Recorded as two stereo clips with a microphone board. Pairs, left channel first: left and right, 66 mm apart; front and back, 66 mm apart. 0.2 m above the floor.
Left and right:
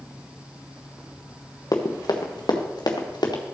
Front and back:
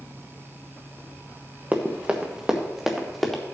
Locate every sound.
1.7 s running footsteps: 115° left, 1.7 m; by 3.4 s 85° left, 2.5 m